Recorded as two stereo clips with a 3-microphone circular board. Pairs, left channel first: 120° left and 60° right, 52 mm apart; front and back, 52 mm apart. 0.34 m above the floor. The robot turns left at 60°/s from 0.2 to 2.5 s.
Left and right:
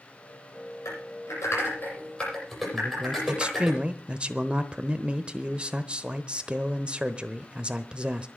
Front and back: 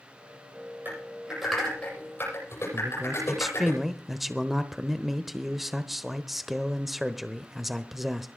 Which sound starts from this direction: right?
A man speaking, at 2.7 s.